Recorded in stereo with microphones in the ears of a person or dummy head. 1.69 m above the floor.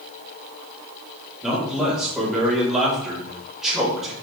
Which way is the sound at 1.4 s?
5° left (ahead or behind).